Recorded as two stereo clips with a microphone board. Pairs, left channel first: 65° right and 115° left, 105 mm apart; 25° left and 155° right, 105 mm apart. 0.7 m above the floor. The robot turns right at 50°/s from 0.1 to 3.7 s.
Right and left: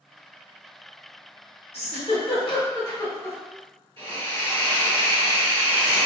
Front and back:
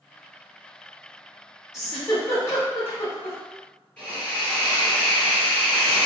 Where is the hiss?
100° left, 1.9 m.